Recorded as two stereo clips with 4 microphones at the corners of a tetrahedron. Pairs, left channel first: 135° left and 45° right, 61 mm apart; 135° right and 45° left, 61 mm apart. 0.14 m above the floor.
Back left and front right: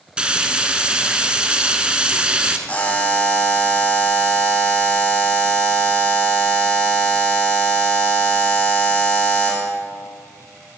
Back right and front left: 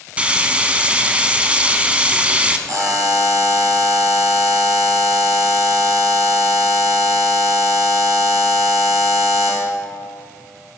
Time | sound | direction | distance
0.2 | frying | 5° left | 0.8 m
2.7 | a buzzer | 70° left | 2 m